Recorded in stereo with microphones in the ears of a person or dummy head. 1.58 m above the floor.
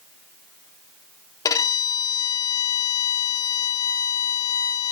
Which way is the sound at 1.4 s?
15° left (ahead or behind).